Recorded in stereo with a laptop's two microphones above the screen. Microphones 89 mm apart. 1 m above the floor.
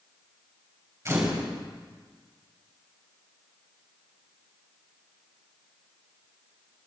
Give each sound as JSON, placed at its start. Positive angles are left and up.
{"t": 1.1, "sound": "a camera shutter", "side_deg": -35, "distance_m": 4.5}